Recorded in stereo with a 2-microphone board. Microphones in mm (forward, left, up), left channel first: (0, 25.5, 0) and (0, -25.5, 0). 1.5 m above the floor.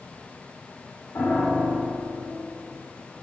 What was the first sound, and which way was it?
A piano, 60° left (ahead or behind).